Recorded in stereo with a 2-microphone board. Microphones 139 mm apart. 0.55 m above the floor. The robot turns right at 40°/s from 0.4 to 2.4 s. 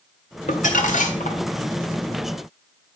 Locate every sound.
0.5 s crumpling: 75° left, 1.8 m; by 1.4 s 115° left, 1.8 m